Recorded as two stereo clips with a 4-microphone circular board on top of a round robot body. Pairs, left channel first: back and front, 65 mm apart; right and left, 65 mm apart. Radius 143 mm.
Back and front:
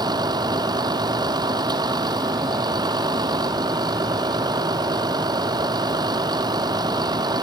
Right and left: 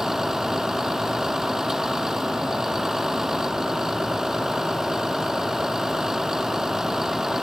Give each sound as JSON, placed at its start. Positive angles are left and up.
{"t": 0.0, "sound": "a vehicle", "azimuth_deg": 5}